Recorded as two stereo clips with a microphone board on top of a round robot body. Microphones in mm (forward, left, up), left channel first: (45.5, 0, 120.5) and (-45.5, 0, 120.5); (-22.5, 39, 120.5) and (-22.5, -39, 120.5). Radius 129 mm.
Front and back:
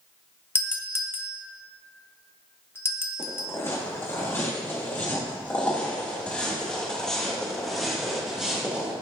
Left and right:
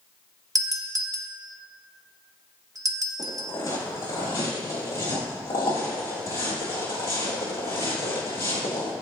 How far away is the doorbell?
About 1.2 m.